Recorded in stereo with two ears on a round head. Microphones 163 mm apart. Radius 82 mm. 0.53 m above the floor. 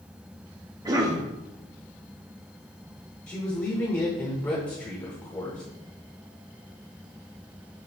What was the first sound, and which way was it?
A cough, 20° right (ahead or behind).